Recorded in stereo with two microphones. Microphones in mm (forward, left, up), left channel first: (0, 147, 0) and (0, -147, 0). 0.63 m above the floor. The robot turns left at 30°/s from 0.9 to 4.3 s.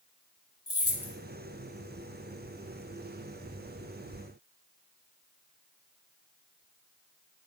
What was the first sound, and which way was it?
Keys jangling, 50° left (ahead or behind).